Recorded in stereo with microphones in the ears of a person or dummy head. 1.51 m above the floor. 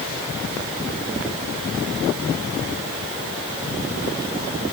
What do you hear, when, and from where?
Only background noise.